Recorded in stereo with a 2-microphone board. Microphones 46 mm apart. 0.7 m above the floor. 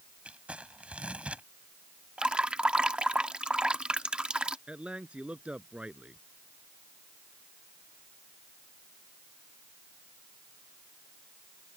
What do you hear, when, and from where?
0.2 s crumpling: 30° right (ahead or behind)
2.2 s dripping: 25° right (ahead or behind)
4.7 s a man speaking: 25° right (ahead or behind)